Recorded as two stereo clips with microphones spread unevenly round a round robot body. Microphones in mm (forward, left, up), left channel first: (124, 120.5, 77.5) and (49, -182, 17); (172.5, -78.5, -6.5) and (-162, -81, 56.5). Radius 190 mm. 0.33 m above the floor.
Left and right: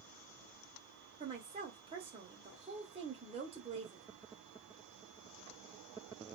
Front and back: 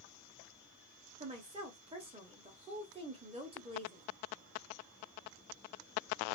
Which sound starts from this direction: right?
A woman speaking, at 1.2 s.